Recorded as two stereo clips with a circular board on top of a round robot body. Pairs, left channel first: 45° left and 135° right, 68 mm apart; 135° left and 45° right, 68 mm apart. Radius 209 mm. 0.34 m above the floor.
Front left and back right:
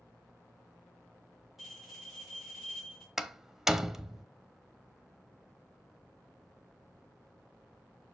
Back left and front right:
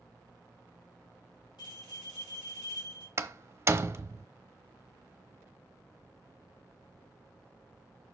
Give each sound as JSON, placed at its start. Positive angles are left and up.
{"t": 1.6, "sound": "a bell", "azimuth_deg": 140, "distance_m": 4.5}
{"t": 3.2, "sound": "a door slam", "azimuth_deg": -60, "distance_m": 1.1}